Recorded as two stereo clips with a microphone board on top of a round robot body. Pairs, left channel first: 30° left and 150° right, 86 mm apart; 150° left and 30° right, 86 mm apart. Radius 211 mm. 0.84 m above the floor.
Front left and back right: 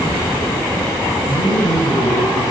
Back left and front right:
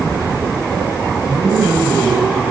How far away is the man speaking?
About 5.5 m.